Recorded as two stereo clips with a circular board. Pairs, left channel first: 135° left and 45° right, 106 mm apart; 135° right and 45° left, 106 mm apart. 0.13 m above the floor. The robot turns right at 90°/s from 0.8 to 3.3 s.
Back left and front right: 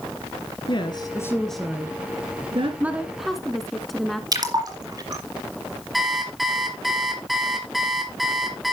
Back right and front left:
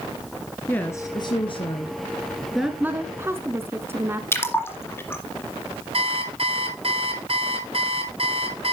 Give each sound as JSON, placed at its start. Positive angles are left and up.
{"t": 0.7, "sound": "a woman speaking", "azimuth_deg": 155, "distance_m": 1.6}
{"t": 2.8, "sound": "a woman speaking", "azimuth_deg": 0, "distance_m": 1.1}
{"t": 4.3, "sound": "a splash", "azimuth_deg": -80, "distance_m": 2.0}
{"t": 5.9, "sound": "an alarm clock", "azimuth_deg": 45, "distance_m": 1.6}